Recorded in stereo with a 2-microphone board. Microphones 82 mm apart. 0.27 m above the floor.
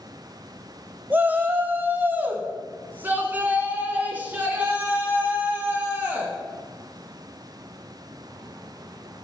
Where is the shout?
20° right (ahead or behind), 1.1 m.